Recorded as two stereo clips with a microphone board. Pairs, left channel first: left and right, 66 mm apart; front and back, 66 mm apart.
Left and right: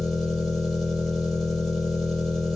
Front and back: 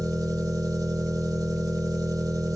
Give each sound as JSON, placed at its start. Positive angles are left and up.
{"t": 0.0, "sound": "an engine running", "azimuth_deg": 170, "distance_m": 3.0}